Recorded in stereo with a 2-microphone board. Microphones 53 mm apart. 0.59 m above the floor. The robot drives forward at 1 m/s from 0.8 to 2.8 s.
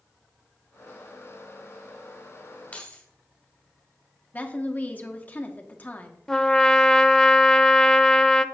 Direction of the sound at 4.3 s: 30° left (ahead or behind).